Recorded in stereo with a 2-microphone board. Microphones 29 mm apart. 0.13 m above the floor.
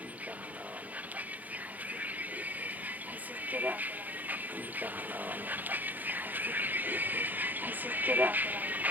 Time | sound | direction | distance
0.0 | a vehicle | 60° right (ahead or behind) | ?